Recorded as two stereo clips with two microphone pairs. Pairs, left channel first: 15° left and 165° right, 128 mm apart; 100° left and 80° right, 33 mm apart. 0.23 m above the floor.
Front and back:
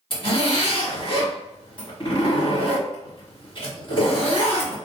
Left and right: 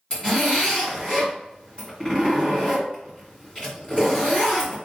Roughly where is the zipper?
Ahead left.